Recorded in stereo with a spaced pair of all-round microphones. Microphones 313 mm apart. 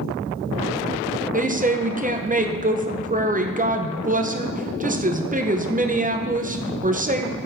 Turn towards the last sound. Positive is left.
turn(degrees=-25)  # may be behind; listen again after turning